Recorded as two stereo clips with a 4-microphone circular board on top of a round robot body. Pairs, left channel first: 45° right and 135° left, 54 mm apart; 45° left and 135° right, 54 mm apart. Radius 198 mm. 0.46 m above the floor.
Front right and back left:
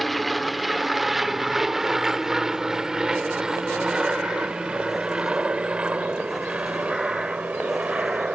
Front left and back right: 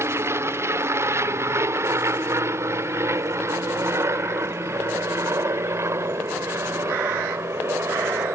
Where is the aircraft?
135° right; by 8.3 s 165° right.